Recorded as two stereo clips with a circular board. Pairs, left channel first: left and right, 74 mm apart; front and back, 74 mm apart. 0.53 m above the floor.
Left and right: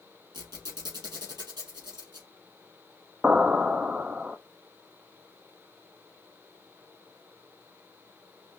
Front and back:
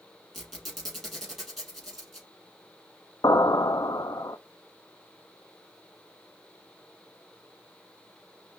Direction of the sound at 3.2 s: 20° right.